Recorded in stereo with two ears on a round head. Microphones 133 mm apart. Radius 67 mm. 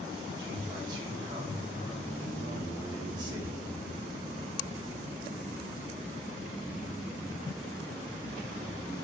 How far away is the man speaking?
About 1.7 m.